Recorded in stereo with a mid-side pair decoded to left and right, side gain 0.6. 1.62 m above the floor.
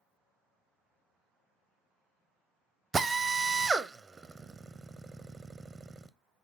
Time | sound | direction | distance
2.9 | a drill | 25° right | 0.5 m